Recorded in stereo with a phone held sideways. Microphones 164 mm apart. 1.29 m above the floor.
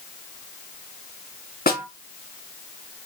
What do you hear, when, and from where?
1.7 s a snare drum: 75° left (ahead or behind), 1.5 m